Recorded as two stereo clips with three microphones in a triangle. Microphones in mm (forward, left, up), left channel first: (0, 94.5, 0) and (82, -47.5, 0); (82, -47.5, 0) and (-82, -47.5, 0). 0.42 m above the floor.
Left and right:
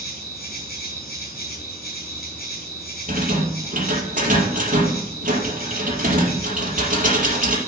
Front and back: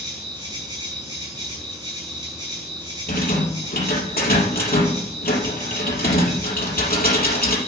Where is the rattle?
25° right, 4.5 m.